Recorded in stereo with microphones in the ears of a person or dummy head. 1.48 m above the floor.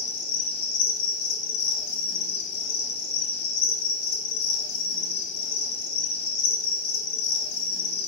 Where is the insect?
75° left (ahead or behind), 0.8 m.